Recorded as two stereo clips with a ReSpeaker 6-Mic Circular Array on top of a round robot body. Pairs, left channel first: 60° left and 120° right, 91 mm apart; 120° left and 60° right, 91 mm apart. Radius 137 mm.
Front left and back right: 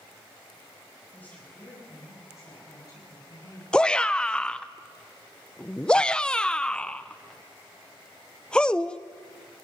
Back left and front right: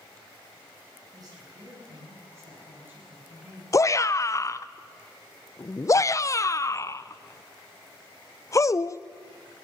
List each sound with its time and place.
1.1 s a woman speaking: 15° right, 7.5 m; by 3.6 s 15° left, 8 m
3.7 s a shout: 130° left, 0.8 m